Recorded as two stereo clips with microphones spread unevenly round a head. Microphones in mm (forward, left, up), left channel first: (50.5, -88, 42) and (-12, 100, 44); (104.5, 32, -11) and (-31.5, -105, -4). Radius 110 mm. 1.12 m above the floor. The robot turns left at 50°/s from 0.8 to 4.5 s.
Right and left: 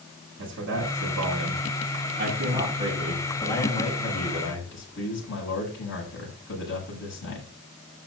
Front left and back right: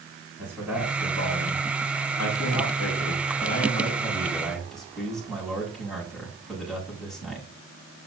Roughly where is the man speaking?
Behind left.